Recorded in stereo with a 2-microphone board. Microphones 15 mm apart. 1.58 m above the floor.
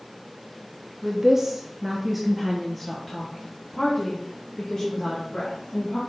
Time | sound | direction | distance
1.0 | a woman speaking | 35° right (ahead or behind) | 1.1 m